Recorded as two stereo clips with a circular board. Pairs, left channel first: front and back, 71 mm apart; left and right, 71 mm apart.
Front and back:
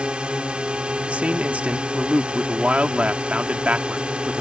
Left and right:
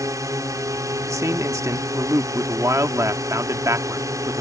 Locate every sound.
0.0 s a drone: 110° right
1.1 s a man speaking: 115° right